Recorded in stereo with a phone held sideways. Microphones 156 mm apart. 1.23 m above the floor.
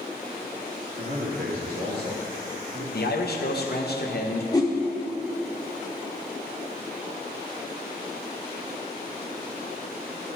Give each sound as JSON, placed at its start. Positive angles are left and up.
{"t": 1.0, "sound": "a man speaking", "side_deg": -75, "distance_m": 2.5}
{"t": 2.9, "sound": "a man speaking", "side_deg": 75, "distance_m": 1.0}
{"t": 4.5, "sound": "a whoosh", "side_deg": 20, "distance_m": 0.9}